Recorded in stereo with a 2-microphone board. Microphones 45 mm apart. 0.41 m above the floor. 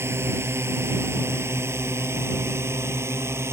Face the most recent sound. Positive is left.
turn(degrees=-75)  # may be behind; listen again after turning